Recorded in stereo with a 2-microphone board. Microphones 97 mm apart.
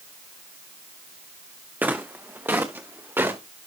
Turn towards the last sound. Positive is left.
turn(degrees=-20)  # may be behind; listen again after turning